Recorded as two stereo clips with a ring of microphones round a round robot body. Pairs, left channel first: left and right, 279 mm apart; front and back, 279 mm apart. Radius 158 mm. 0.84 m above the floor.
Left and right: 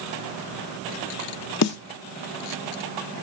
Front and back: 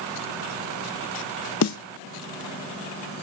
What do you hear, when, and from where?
1.6 s a snare drum: 45° left, 0.5 m